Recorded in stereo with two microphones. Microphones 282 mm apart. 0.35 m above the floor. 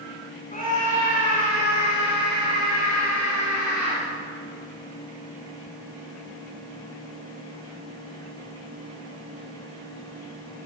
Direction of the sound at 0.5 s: 30° left (ahead or behind).